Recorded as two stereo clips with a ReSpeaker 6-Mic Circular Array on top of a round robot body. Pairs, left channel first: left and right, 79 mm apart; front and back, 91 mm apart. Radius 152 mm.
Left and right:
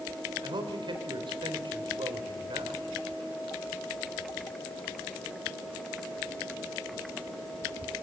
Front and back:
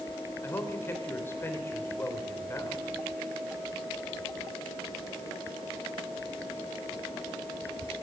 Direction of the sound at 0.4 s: 65° right.